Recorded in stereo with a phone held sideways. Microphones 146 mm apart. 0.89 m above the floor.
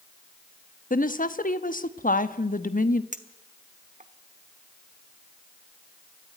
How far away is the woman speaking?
About 1.1 m.